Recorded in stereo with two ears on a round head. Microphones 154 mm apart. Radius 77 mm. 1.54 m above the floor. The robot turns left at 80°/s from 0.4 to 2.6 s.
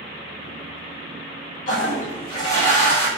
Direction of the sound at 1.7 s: 95° left.